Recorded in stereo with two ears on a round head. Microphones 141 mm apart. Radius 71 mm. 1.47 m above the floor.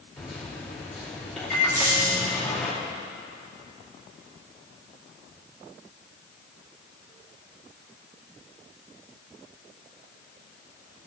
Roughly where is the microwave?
Centre.